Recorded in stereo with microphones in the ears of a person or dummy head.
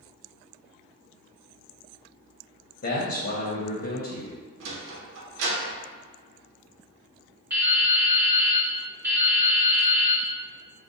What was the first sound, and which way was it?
A man speaking, 50° left (ahead or behind).